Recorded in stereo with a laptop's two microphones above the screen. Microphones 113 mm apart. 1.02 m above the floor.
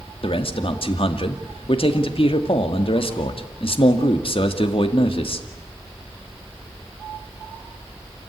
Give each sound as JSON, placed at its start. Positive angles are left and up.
{"t": 0.2, "sound": "a man speaking", "side_deg": 55, "distance_m": 2.0}